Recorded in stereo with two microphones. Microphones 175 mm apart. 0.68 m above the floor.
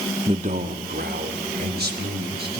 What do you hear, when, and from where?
0.3 s a man speaking: 30° right (ahead or behind), 0.6 m; by 2.6 s 80° right, 4 m